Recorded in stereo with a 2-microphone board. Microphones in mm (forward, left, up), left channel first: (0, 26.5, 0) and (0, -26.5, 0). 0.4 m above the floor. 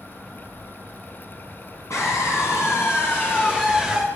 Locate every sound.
1.9 s a scream: 70° left (ahead or behind), 3.5 m; by 4.0 s centre (ahead or behind), 1.6 m